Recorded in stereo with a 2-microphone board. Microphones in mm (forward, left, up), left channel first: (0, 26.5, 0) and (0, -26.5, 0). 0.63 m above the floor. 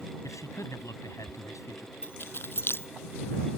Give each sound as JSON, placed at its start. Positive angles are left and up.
{"t": 0.2, "sound": "a man speaking", "side_deg": 70}
{"t": 2.0, "sound": "keys jangling", "side_deg": 40}